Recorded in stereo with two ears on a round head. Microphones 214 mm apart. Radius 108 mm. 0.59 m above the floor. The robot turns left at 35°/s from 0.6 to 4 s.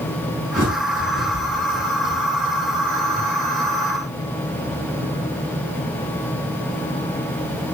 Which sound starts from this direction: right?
A bird, at 0.6 s.